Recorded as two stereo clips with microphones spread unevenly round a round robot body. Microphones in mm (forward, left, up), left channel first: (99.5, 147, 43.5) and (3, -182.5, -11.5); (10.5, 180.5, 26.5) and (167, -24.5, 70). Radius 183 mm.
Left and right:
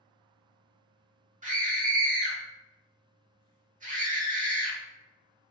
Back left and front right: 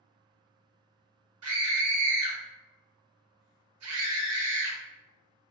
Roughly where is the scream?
Ahead right.